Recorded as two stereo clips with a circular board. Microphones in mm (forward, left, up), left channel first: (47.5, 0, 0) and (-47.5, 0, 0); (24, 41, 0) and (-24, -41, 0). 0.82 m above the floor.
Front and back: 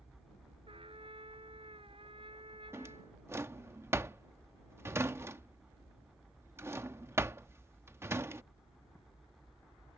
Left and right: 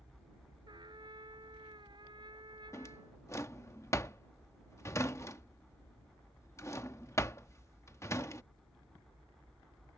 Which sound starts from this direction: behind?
A trumpet, at 0.7 s.